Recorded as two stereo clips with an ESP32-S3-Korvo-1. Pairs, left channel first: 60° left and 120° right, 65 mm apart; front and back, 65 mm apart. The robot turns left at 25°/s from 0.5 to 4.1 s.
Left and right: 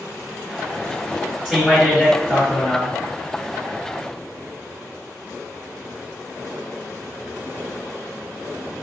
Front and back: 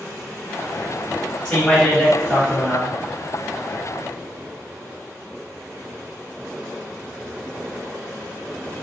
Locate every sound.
1.4 s a man speaking: 60° right, 1.4 m; by 3.0 s 100° right, 1.4 m